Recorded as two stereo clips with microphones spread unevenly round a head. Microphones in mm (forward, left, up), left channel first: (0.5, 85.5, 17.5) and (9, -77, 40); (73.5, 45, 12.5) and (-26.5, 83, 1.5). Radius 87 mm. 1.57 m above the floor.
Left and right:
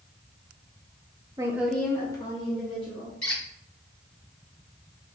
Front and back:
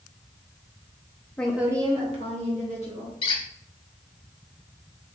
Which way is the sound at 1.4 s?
75° right.